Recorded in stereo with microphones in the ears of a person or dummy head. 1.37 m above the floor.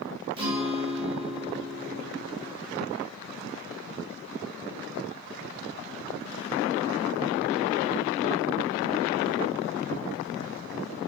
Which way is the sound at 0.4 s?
30° right (ahead or behind).